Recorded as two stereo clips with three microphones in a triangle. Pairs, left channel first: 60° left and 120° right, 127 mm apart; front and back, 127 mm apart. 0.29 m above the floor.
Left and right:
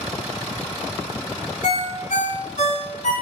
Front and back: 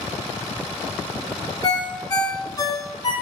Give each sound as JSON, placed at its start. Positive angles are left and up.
{"t": 1.6, "sound": "a ringtone", "azimuth_deg": 60, "distance_m": 1.5}